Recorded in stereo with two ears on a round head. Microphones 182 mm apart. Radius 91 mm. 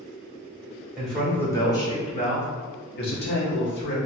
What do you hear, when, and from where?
1.0 s a man speaking: centre (ahead or behind), 1.3 m; by 4.0 s 55° left (ahead or behind), 1.5 m